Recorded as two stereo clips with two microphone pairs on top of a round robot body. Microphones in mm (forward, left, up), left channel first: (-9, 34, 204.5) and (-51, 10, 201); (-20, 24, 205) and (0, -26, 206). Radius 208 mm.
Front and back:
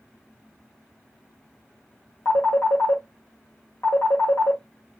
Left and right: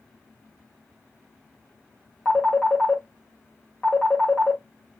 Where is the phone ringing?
35° left, 1.5 m.